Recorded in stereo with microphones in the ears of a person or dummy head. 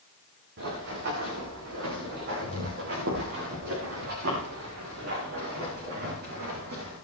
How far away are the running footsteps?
About 8 m.